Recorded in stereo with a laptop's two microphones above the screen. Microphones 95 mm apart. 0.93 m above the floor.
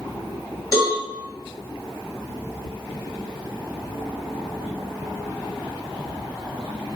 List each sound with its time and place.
0.7 s a cowbell: 40° left (ahead or behind), 1.4 m